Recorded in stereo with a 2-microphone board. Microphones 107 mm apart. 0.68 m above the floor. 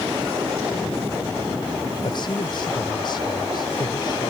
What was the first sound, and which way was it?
A man speaking, 50° left (ahead or behind).